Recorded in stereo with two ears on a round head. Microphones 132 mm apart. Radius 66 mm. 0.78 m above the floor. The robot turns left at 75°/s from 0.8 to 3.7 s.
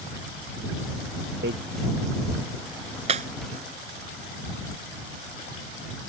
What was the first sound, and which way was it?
Hammering, 80° right.